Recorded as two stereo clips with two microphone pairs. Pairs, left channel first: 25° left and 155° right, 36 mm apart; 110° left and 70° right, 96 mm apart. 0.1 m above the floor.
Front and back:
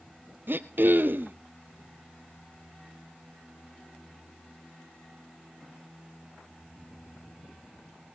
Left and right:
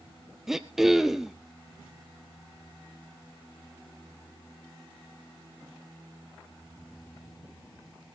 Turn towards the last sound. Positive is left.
turn(degrees=-160)